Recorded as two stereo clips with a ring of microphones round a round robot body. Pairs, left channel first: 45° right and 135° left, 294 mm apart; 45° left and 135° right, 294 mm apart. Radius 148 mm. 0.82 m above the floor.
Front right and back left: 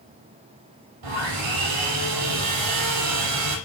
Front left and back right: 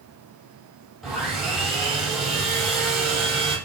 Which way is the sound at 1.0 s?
135° left.